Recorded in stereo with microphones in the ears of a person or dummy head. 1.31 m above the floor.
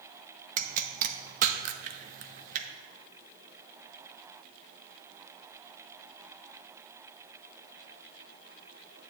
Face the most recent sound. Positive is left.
turn(degrees=-45)  # may be behind; listen again after turning